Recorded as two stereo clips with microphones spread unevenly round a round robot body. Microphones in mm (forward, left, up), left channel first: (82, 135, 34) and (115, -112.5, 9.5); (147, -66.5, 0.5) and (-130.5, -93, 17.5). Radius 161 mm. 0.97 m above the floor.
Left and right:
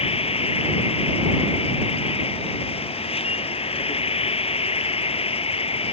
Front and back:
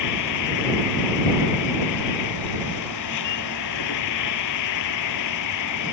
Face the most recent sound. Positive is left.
turn(degrees=35)